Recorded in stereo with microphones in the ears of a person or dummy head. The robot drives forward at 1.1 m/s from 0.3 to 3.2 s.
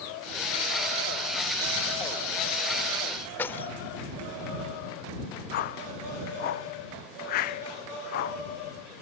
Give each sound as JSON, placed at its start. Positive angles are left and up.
{"t": 3.4, "sound": "keys jangling", "side_deg": 10}
{"t": 5.5, "sound": "a whoosh", "side_deg": 50}